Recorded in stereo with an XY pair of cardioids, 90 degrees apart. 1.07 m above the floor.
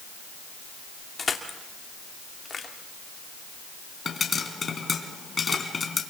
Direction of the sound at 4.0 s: 40° left.